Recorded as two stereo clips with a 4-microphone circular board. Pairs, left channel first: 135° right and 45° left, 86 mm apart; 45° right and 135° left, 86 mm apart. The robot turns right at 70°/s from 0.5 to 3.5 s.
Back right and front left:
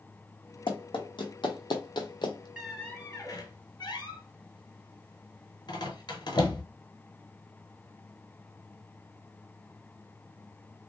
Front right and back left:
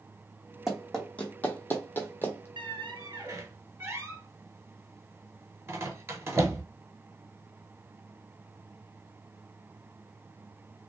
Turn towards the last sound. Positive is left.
turn(degrees=-170)